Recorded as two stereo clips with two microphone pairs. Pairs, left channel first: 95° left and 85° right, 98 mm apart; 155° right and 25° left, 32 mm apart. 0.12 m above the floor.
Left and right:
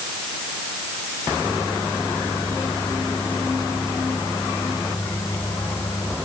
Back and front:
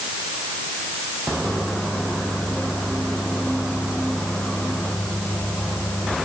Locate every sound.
1.4 s a microwave: 160° left